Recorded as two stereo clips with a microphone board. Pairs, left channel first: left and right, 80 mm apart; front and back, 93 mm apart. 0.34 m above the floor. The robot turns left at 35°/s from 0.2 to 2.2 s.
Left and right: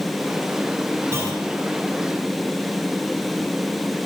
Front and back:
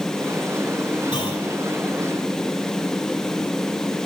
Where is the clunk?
35° right, 2 m; by 1.4 s 45° right, 2 m.